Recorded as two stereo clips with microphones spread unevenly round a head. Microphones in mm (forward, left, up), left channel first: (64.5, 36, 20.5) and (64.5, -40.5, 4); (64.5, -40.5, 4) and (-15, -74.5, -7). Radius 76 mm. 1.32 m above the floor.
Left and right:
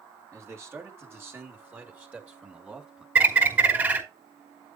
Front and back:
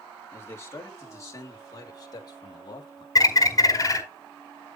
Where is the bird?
25° right, 4.5 m.